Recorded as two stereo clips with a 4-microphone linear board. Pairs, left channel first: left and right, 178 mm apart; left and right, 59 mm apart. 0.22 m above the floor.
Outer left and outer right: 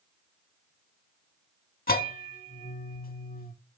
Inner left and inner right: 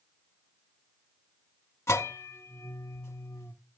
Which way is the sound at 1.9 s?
55° left (ahead or behind).